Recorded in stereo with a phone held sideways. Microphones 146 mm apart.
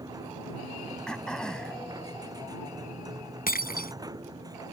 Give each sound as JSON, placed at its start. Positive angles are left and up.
{"t": 0.0, "sound": "a machine running", "side_deg": -25}
{"t": 1.1, "sound": "throat clearing", "side_deg": 5}
{"t": 3.5, "sound": "breaking glass", "side_deg": 85}